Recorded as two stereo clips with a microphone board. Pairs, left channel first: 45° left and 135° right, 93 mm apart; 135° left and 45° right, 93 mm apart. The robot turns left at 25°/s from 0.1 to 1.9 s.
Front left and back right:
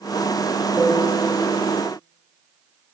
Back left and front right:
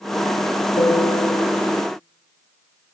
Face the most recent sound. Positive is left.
turn(degrees=105)